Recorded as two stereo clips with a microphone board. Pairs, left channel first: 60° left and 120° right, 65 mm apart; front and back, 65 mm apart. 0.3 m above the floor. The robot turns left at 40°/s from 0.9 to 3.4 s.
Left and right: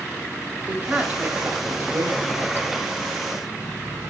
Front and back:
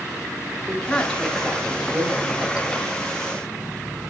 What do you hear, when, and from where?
0.7 s a woman speaking: 70° right, 1.7 m; by 2.7 s 140° right, 1.7 m